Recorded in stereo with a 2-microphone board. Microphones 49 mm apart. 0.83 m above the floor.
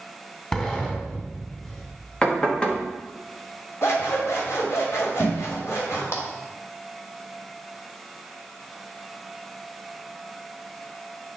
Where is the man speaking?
I don't hear a man speaking.